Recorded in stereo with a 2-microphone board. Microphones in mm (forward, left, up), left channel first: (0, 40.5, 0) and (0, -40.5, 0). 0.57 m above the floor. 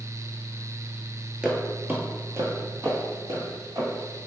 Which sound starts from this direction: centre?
Footsteps, at 1.4 s.